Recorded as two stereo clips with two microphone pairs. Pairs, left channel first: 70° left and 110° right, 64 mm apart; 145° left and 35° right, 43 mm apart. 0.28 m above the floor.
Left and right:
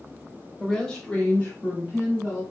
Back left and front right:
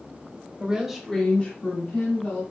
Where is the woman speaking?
10° right, 1.1 m; by 2.4 s 135° left, 2 m.